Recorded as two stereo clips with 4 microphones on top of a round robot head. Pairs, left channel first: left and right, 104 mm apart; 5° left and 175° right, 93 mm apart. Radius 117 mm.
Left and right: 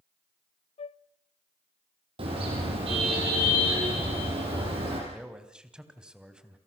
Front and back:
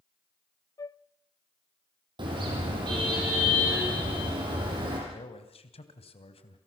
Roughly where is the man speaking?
Ahead.